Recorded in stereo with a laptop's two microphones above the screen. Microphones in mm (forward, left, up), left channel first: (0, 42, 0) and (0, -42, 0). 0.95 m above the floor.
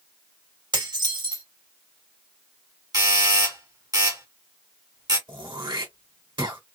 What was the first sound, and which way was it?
Dishes clattering, 65° right (ahead or behind).